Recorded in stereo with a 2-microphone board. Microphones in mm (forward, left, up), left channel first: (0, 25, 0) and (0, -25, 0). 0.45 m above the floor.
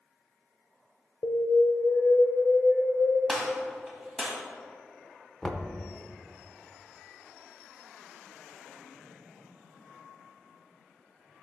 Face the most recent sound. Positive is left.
turn(degrees=10)  # may be behind; listen again after turning